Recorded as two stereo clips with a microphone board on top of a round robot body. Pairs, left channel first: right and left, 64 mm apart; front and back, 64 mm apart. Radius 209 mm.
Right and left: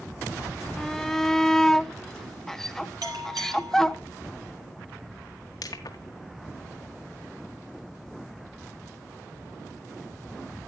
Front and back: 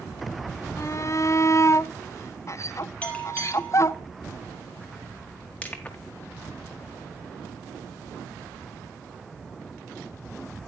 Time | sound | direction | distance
0.8 | a shout | 10° right | 1.0 m
3.0 | a bell | 70° left | 1.8 m
5.6 | crushing | 70° right | 1.5 m